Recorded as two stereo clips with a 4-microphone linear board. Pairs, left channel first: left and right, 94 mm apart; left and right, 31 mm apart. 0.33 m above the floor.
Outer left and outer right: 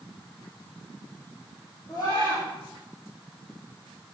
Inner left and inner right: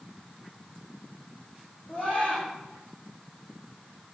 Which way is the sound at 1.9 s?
30° left (ahead or behind).